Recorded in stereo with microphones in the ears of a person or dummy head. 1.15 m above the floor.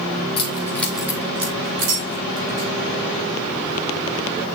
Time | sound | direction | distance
0.4 | keys jangling | 25° left (ahead or behind) | 1.6 m